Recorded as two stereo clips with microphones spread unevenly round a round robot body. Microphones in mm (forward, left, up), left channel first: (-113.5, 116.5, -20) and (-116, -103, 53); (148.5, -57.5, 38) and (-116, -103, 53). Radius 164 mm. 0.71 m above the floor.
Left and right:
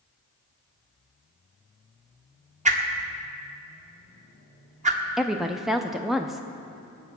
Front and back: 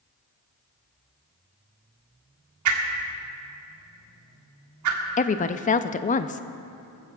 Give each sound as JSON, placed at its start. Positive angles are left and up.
{"t": 2.6, "sound": "a whoosh", "azimuth_deg": -155, "distance_m": 1.8}
{"t": 5.2, "sound": "a woman speaking", "azimuth_deg": 30, "distance_m": 0.5}